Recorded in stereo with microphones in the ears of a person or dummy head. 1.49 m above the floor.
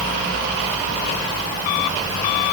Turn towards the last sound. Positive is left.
No sound to turn to.